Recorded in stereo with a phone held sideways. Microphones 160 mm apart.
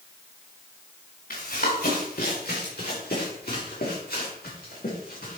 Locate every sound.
1.3 s running footsteps: 70° left (ahead or behind), 3.5 m; by 5.4 s 65° left (ahead or behind), 6.5 m